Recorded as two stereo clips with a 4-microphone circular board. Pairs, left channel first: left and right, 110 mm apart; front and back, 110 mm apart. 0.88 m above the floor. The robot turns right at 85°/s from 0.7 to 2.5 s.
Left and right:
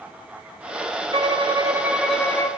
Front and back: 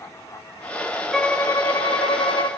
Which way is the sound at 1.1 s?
85° right.